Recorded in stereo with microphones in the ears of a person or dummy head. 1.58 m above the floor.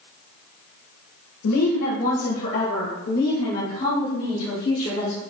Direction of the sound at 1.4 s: 85° left.